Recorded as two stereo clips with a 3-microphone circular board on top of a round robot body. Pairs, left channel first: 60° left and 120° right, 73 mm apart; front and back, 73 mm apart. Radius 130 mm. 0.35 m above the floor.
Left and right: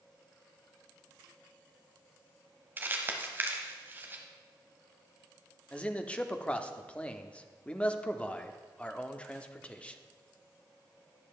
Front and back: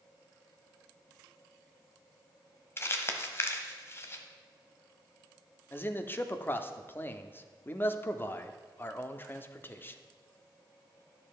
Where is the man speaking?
5° left, 0.9 m.